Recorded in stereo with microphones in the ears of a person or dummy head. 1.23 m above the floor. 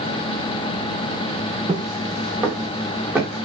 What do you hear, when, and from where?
1.7 s footsteps: 25° right (ahead or behind), 2.5 m; by 3.5 s 5° right (ahead or behind), 4 m